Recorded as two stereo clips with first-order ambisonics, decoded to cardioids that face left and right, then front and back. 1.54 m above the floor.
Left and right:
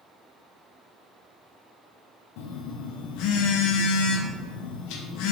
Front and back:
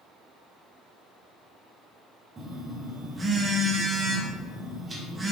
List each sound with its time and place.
2.4 s a phone buzzing: 105° left, 0.5 m